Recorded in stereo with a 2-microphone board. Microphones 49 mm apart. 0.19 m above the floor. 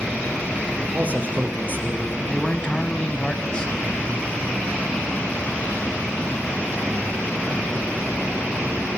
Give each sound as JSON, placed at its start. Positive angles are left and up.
{"t": 0.9, "sound": "a man speaking", "side_deg": -35, "distance_m": 5.0}
{"t": 2.3, "sound": "a man speaking", "side_deg": 20, "distance_m": 1.4}